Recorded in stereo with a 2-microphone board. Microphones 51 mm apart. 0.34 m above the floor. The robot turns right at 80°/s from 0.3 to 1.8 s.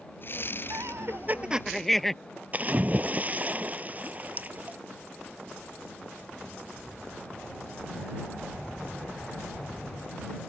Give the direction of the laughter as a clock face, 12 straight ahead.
3 o'clock.